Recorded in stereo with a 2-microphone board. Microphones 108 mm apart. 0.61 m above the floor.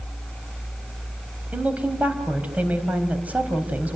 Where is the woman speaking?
15° right (ahead or behind), 4 m.